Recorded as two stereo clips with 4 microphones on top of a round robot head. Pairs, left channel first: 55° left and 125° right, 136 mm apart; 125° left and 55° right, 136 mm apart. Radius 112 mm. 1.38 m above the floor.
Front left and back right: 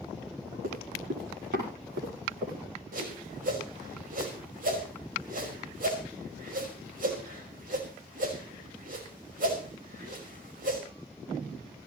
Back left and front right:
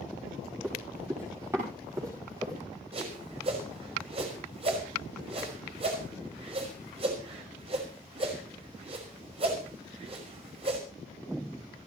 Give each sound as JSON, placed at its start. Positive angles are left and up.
{"t": 0.6, "sound": "running footsteps", "azimuth_deg": -130, "distance_m": 8.5}
{"t": 2.9, "sound": "a whoosh", "azimuth_deg": -105, "distance_m": 5.5}